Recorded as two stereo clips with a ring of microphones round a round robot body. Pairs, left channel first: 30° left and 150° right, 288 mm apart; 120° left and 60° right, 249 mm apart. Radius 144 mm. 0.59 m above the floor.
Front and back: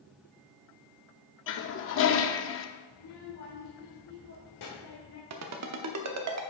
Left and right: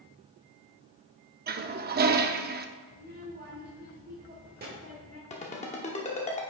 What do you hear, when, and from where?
1.5 s a toilet flushing: 10° right, 0.6 m
2.9 s a child speaking: 5° right, 1.4 m
5.3 s a ringtone: 175° right, 0.9 m